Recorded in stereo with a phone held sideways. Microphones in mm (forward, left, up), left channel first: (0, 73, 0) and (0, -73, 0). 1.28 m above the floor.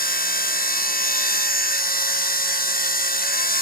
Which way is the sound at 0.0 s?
85° left.